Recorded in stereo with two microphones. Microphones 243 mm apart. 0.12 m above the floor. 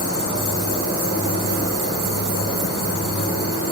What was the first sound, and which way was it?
An insect, 75° left (ahead or behind).